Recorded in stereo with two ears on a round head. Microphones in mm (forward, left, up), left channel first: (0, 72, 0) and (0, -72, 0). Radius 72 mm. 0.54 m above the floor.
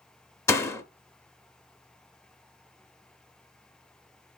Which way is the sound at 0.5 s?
15° left (ahead or behind).